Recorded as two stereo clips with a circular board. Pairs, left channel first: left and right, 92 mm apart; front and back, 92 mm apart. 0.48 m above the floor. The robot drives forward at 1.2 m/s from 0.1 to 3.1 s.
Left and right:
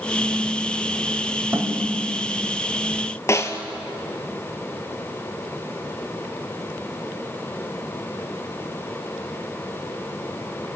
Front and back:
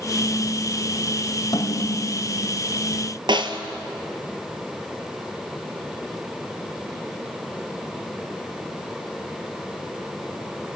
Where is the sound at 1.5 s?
30° right, 2.5 m; by 2.3 s 45° right, 2 m.